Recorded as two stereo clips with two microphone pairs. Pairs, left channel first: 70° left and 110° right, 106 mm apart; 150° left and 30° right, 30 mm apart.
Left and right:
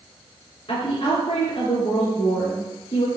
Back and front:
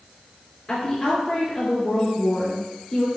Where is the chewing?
I don't hear chewing.